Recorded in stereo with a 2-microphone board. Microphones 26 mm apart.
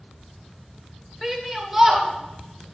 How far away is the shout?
About 1.6 m.